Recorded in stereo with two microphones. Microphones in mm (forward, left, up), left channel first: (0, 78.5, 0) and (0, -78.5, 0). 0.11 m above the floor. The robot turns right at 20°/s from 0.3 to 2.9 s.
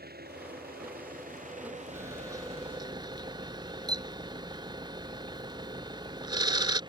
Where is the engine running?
80° right; by 6.9 s 30° right.